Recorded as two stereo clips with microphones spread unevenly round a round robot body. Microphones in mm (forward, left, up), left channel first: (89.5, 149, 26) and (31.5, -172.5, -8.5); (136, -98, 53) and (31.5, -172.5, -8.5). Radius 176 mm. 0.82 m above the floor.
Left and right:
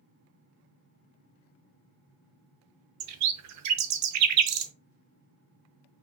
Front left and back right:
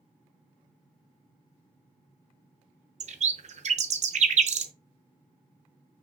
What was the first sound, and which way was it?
A bird, 95° right.